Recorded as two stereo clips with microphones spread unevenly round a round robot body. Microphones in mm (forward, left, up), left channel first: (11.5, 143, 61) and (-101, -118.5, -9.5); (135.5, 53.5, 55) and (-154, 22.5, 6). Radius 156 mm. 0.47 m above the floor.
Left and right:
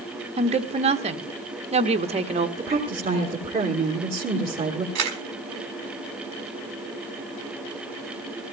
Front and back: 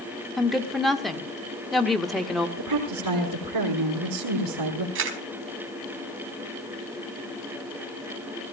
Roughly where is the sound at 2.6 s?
Behind.